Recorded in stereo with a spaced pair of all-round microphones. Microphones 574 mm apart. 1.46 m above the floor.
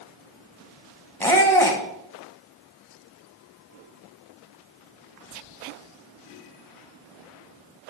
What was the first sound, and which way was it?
A squeak, 5° left (ahead or behind).